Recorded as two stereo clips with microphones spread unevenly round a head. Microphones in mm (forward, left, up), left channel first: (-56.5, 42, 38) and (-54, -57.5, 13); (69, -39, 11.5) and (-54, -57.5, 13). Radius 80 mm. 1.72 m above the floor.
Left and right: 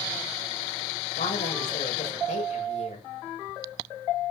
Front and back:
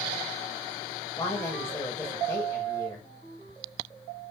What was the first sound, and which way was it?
A woman speaking, 85° left.